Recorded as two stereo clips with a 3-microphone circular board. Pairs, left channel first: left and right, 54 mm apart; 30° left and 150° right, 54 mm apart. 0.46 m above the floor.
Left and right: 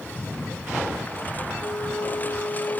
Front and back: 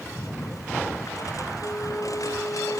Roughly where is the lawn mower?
Ahead left.